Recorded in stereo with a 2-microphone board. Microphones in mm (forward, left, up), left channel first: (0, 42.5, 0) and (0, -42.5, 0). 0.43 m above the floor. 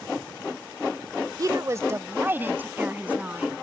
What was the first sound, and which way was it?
A woman speaking, 45° right (ahead or behind).